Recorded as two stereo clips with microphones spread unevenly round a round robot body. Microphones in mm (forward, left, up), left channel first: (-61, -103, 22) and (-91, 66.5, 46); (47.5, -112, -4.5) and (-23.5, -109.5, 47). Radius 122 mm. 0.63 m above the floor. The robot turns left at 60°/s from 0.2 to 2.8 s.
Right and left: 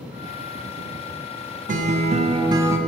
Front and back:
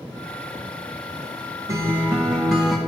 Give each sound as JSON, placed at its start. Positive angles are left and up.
{"t": 1.7, "sound": "a guitar", "azimuth_deg": 85, "distance_m": 1.0}